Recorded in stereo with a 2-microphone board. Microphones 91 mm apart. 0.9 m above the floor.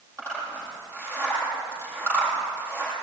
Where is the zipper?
30° right (ahead or behind), 7.5 m.